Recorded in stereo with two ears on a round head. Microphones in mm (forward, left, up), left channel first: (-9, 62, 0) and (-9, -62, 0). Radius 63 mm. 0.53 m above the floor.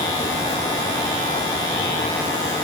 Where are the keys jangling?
I don't hear keys jangling.